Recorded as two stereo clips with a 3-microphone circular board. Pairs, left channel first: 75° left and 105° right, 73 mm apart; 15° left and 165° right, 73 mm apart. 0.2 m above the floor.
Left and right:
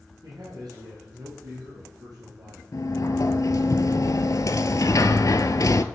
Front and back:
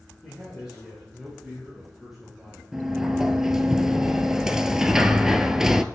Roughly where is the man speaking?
Right.